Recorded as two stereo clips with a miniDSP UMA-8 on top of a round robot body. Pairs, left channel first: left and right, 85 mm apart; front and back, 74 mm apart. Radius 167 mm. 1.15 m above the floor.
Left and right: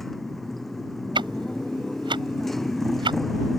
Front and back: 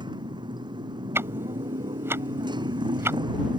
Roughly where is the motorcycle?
Behind.